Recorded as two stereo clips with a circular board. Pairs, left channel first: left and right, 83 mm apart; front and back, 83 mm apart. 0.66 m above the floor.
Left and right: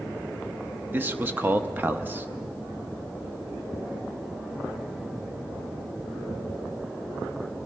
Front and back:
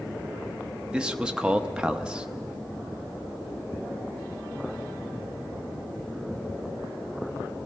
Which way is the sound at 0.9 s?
115° right.